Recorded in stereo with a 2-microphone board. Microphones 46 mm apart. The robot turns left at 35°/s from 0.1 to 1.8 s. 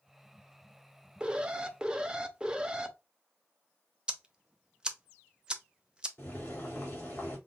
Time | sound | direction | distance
1.2 | an alarm | 20° right (ahead or behind) | 0.5 m
4.1 | ticking | 20° right (ahead or behind) | 0.5 m
6.2 | boiling | 40° left (ahead or behind) | 2 m